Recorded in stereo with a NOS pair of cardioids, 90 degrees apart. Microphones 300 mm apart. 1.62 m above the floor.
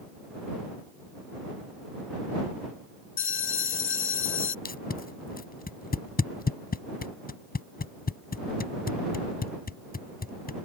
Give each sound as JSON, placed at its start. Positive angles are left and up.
{"t": 3.2, "sound": "a bell", "azimuth_deg": 45}
{"t": 4.7, "sound": "tape being pulled", "azimuth_deg": 30}